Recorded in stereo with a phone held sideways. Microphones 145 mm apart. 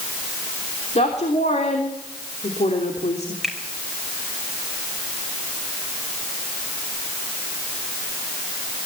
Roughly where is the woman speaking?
Left.